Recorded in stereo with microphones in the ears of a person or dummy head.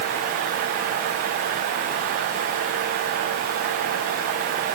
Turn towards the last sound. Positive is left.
No sound to turn to.